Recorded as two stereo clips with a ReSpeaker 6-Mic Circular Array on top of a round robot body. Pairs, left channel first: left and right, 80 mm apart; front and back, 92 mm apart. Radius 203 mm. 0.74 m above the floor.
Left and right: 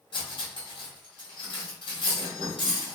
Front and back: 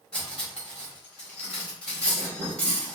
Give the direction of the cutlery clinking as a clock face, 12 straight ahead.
9 o'clock.